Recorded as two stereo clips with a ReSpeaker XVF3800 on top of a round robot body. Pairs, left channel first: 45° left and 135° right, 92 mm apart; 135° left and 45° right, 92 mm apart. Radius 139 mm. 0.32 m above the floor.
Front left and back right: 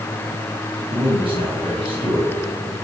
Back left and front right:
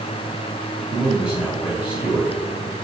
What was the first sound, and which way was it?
A man speaking, 135° right.